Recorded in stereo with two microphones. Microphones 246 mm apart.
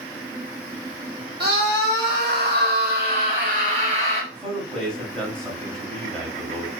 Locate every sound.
1.4 s a scream: 45° right (ahead or behind), 1.5 m; by 4.2 s 25° right (ahead or behind), 1.4 m
4.3 s a man speaking: 5° left (ahead or behind), 1.3 m